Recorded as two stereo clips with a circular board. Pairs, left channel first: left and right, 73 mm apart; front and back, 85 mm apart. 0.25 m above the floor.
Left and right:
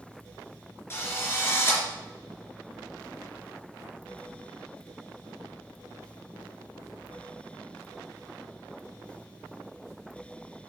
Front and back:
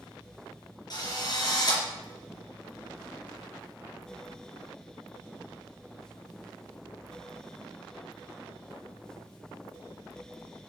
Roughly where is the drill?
Ahead left.